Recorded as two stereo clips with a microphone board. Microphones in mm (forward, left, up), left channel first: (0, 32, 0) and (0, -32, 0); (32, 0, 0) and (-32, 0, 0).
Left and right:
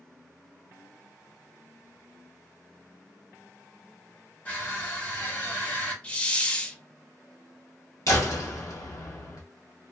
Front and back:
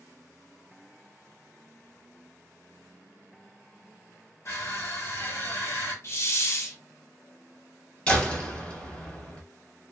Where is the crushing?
30° left, 2.0 m.